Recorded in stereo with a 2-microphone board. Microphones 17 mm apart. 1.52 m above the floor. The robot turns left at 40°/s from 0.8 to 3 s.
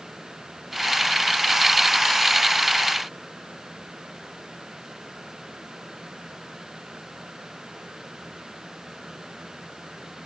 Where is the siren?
No siren in this recording.